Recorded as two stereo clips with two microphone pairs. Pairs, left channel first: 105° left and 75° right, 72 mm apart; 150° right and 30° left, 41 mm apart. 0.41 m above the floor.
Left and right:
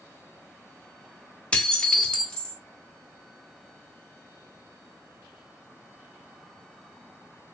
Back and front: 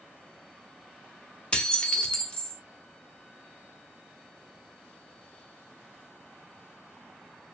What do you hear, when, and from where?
1.5 s dishes clattering: 165° left, 0.6 m